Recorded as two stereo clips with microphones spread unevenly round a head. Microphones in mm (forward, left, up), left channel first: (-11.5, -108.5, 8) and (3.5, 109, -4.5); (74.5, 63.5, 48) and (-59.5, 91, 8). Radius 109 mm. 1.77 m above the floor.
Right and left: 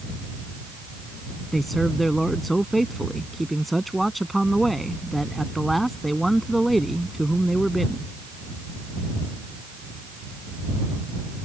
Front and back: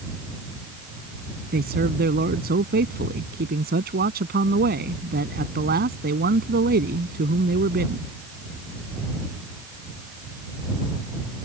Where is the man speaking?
175° left.